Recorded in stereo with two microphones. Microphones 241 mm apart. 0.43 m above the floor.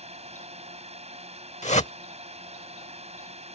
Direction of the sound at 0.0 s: 25° right (ahead or behind).